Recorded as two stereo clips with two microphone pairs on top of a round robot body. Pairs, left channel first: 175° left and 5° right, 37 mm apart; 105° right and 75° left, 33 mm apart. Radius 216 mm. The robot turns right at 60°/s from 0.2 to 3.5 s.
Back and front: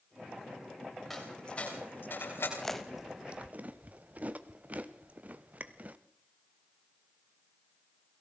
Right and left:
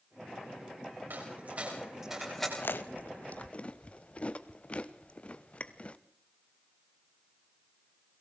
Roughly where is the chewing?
Right.